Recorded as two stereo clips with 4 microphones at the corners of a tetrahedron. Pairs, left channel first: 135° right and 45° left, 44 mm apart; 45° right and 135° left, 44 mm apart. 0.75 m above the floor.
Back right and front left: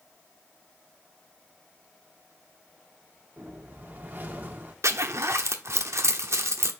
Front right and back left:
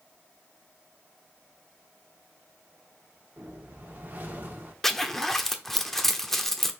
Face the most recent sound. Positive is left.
turn(degrees=40)